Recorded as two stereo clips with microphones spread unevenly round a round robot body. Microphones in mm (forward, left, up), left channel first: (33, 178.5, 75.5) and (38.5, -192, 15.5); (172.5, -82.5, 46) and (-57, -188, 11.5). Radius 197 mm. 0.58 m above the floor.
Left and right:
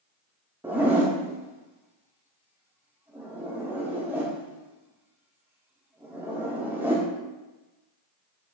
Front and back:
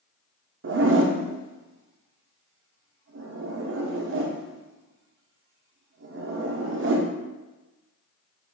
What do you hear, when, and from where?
0.6 s a zipper: 165° right, 0.9 m